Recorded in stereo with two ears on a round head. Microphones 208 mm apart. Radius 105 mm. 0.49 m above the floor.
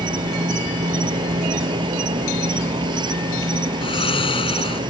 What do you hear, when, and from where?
0.0 s an insect: 20° right (ahead or behind)
3.8 s snoring: 25° left (ahead or behind)